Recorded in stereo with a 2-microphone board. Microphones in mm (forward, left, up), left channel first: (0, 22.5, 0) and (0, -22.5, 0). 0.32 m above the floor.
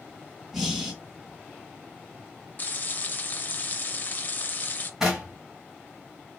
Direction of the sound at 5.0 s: 10° right (ahead or behind).